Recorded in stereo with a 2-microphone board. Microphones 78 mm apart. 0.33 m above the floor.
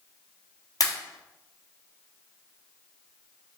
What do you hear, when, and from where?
0.8 s a pop: 50° left (ahead or behind), 1.2 m